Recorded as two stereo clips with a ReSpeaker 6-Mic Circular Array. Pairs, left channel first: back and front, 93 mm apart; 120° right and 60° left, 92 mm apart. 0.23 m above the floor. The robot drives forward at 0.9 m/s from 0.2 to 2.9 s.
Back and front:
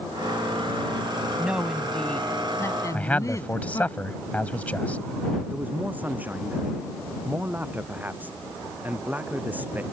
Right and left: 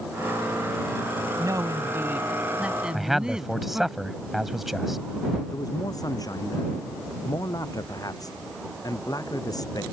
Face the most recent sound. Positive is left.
turn(degrees=-70)